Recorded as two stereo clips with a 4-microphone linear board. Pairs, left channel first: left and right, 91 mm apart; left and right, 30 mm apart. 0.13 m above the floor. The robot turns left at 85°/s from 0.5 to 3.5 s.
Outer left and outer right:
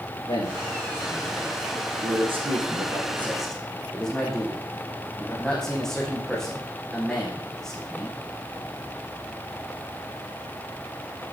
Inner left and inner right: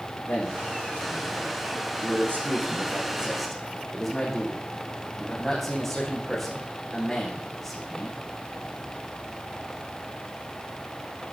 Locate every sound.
0.3 s a man speaking: 70° left, 6.5 m; by 8.2 s 175° left, 6.5 m